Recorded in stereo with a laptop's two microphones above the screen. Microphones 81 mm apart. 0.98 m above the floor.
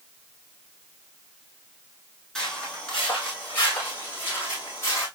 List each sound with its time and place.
2.4 s footsteps: 10° left (ahead or behind), 3 m; by 5.1 s 35° left (ahead or behind), 3 m